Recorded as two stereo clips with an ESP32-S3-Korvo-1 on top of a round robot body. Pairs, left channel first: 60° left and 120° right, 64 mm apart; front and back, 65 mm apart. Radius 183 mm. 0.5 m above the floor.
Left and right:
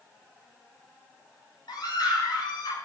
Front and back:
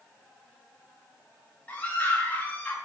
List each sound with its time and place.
1.7 s a scream: 70° left, 6 m